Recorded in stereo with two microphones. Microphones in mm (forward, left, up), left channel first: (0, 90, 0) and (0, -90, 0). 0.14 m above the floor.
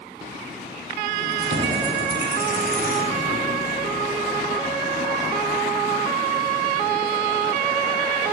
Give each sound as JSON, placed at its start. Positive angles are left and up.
{"t": 1.2, "sound": "keys jangling", "side_deg": -80, "distance_m": 4.0}